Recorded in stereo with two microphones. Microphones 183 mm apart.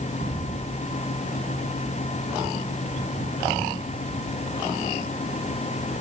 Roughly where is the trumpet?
No trumpet in this recording.